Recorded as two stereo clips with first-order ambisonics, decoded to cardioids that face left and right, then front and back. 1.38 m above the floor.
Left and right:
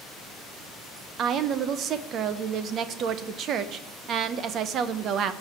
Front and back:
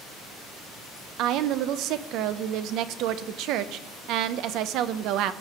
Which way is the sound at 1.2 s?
145° right.